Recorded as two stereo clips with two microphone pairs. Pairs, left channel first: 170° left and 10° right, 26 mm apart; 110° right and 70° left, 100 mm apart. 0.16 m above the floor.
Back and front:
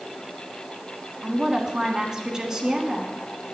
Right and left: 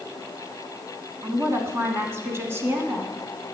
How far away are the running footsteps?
No running footsteps in this recording.